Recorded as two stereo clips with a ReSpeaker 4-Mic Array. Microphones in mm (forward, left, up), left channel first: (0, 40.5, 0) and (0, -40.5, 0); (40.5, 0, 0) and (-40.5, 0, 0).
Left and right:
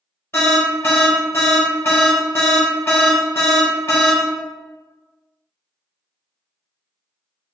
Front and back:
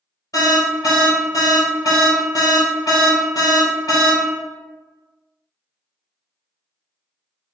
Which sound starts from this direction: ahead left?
An alarm, at 0.3 s.